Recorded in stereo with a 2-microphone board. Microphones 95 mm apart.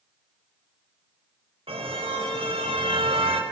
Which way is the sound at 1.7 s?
80° right.